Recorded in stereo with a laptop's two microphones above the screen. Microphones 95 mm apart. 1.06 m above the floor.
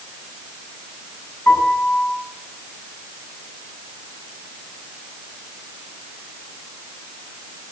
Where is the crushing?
I don't hear crushing.